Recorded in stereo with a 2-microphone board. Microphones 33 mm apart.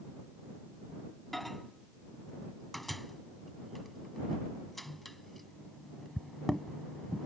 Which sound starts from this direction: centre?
A microwave, at 1.3 s.